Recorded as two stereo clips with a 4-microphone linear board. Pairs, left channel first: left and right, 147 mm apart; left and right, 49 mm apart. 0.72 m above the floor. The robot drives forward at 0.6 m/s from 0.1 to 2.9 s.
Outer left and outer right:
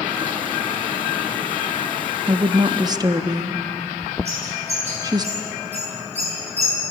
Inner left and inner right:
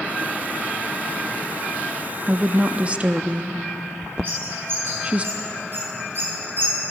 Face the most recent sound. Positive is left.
turn(degrees=-45)  # may be behind; listen again after turning